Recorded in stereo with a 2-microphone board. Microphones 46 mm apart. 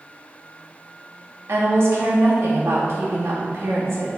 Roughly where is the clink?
I don't hear a clink.